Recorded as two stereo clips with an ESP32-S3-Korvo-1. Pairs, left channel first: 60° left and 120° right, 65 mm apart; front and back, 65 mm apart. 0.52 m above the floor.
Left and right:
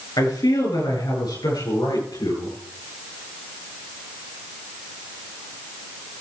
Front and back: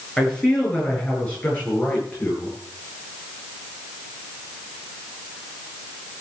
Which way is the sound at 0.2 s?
80° left.